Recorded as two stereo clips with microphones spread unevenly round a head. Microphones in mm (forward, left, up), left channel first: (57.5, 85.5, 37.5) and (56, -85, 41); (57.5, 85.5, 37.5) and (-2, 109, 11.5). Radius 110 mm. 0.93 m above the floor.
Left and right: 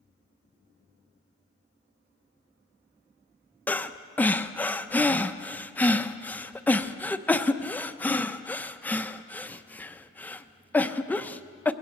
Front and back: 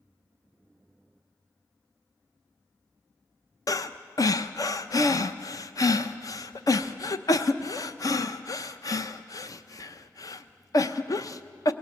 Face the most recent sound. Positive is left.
turn(degrees=15)